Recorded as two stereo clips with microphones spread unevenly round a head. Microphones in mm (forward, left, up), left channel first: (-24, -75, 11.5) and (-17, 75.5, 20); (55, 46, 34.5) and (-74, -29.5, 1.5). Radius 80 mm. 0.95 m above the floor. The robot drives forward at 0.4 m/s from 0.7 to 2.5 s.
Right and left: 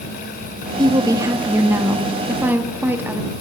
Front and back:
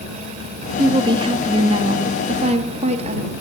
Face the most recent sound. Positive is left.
turn(degrees=165)